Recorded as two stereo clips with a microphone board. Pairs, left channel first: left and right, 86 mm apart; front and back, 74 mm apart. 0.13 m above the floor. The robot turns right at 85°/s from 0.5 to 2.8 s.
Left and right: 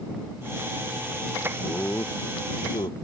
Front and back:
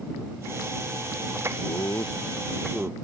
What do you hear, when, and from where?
1.6 s laughter: 5° left; by 2.9 s 105° left